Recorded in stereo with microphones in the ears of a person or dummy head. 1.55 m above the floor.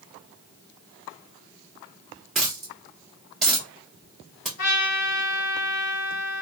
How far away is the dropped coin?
About 0.8 m.